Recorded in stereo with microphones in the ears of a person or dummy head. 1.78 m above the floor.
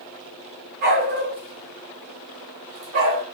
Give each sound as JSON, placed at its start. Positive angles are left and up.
{"t": 0.8, "sound": "a dog barking", "side_deg": -40, "distance_m": 1.9}